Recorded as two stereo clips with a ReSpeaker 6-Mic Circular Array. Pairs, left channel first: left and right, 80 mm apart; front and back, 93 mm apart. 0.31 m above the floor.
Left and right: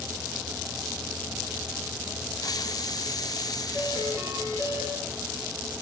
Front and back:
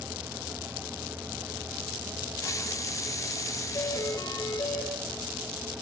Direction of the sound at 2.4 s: 55° left.